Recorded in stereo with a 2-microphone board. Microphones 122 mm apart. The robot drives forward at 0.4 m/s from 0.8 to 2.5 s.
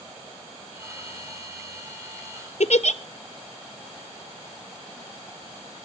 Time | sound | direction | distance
2.6 | a giggle | 70° left (ahead or behind) | 0.5 m